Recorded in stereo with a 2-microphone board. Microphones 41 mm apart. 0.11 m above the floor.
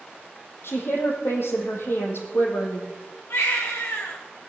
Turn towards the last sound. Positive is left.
turn(degrees=75)  # may be behind; listen again after turning